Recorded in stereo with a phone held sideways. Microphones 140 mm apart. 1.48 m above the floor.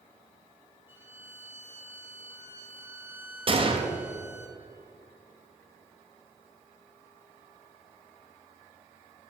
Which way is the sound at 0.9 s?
15° right (ahead or behind).